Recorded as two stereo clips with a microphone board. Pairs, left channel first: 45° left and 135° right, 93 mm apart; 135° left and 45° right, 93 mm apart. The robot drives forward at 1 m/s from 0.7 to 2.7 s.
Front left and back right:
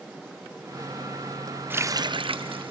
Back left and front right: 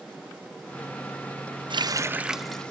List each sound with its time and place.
1.7 s a running tap: 70° right, 0.6 m; by 2.7 s 145° right, 1.0 m